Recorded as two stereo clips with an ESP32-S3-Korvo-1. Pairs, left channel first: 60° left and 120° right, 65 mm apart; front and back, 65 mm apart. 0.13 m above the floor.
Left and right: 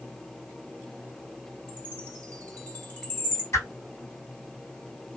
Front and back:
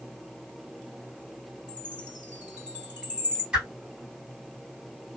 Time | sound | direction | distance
1.7 | a chime | 115° left | 2.5 m
3.5 | a whoosh | 105° left | 2.5 m